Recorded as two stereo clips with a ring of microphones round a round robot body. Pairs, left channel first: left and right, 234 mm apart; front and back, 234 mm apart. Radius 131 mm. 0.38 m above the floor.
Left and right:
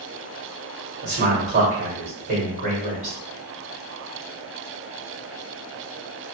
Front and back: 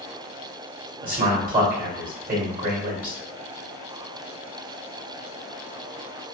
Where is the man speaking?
140° right, 1.7 m.